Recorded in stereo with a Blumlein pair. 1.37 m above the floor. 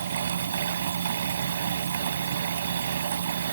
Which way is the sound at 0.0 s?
65° right.